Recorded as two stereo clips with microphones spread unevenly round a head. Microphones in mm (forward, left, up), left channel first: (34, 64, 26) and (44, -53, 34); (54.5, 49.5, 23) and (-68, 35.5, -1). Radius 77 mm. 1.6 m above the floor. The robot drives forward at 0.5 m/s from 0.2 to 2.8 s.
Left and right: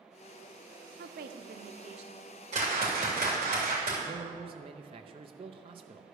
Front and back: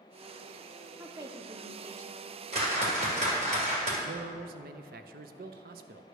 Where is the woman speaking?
95° right, 0.6 m; by 2.3 s 140° right, 0.9 m.